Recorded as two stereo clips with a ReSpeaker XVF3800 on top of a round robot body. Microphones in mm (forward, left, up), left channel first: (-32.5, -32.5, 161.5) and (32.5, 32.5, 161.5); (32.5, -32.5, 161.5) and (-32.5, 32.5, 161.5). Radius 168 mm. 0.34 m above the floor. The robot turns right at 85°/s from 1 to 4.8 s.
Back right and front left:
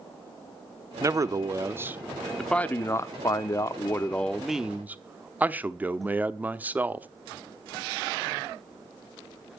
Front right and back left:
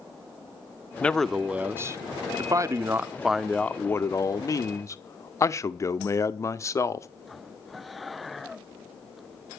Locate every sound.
1.0 s a man speaking: 20° left, 0.9 m; by 7.1 s 15° right, 0.9 m